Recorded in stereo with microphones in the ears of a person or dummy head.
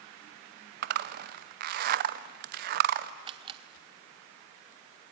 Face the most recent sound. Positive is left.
turn(degrees=-30)  # may be behind; listen again after turning